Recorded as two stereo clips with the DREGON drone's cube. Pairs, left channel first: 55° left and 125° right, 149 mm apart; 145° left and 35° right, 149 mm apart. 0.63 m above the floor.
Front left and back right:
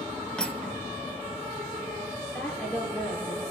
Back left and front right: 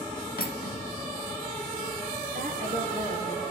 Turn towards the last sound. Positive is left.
turn(degrees=-25)